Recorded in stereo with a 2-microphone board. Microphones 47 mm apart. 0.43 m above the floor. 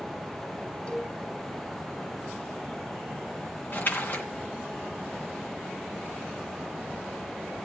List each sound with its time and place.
0.9 s a cowbell: 25° left (ahead or behind), 3 m
3.7 s a splash: 40° left (ahead or behind), 2 m